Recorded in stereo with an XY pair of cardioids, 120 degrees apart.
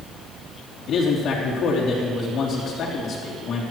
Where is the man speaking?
55° left, 3.5 m.